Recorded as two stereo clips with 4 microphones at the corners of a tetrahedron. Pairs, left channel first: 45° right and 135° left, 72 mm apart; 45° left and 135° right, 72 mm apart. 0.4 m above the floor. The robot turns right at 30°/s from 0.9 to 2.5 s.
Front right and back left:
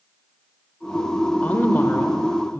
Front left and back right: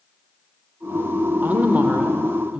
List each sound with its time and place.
1.4 s a woman speaking: 95° right, 0.9 m; by 2.6 s 65° right, 0.9 m